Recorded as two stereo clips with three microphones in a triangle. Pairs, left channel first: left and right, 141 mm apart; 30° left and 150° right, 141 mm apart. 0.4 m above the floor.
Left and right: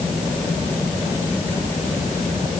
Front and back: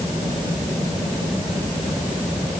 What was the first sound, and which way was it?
Only background noise.